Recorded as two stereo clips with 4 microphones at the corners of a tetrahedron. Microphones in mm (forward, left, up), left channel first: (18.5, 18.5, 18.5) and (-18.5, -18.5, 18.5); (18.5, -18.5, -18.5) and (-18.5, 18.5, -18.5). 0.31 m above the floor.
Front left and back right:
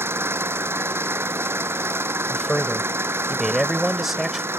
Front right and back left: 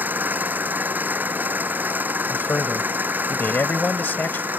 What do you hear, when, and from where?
0.0 s an engine running: 170° right
2.3 s a man speaking: 50° right